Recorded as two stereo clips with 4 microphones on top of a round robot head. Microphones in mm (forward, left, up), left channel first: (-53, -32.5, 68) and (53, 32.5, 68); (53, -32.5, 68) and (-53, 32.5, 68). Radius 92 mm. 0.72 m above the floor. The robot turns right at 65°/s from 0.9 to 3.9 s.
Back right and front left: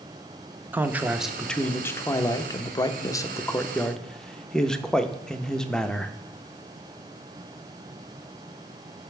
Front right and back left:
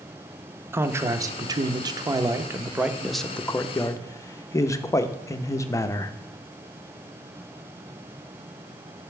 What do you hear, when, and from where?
0.7 s a man speaking: 95° left, 0.6 m; by 6.1 s 70° right, 0.6 m